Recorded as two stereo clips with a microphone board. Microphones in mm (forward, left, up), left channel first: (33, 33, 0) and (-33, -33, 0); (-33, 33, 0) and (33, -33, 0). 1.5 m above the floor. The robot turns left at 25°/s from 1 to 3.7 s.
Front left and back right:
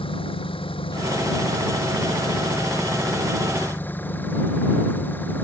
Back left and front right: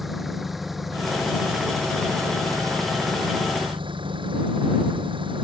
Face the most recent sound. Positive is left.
turn(degrees=-25)